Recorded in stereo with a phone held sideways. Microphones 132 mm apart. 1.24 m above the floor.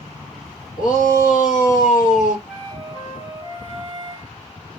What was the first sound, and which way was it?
A shout, 85° left.